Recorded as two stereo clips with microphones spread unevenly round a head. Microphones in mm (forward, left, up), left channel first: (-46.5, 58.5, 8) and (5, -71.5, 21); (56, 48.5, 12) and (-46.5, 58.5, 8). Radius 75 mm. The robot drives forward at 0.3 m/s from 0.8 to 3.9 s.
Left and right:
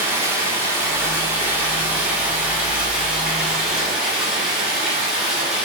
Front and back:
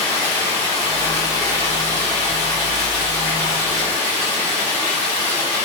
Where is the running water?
135° right, 1.9 m; by 5.7 s 150° right, 2.5 m.